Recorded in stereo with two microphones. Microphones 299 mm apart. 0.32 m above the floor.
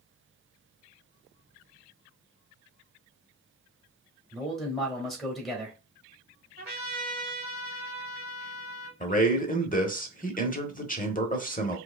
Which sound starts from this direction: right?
A trumpet, at 6.6 s.